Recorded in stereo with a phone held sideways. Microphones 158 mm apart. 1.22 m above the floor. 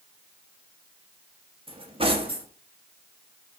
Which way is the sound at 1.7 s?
35° right (ahead or behind).